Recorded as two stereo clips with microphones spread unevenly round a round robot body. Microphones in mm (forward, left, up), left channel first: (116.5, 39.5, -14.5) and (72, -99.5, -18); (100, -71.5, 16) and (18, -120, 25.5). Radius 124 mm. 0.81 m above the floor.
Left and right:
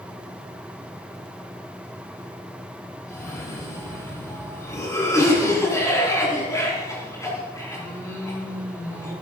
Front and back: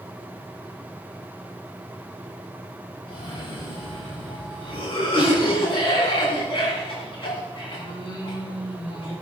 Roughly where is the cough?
Ahead.